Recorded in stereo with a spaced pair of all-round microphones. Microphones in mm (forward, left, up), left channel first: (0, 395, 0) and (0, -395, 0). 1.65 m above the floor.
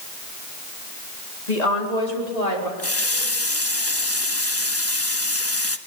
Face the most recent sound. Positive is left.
turn(degrees=15)  # may be behind; listen again after turning